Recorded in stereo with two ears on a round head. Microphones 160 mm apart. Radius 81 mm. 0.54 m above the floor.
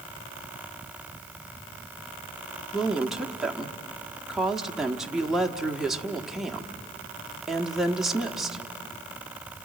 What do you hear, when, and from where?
2.7 s a woman speaking: centre (ahead or behind), 1.1 m